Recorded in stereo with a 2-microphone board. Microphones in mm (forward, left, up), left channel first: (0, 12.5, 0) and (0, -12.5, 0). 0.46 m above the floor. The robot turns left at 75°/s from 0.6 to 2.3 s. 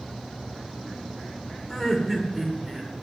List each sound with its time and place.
1.7 s laughter: 35° left, 1.2 m; by 2.9 s 10° right, 1.2 m